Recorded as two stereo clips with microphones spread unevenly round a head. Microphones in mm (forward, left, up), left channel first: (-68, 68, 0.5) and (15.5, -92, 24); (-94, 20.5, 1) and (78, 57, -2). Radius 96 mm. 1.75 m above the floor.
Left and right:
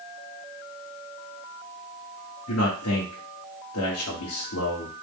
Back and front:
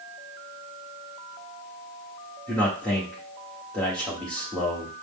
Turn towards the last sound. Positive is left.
turn(degrees=110)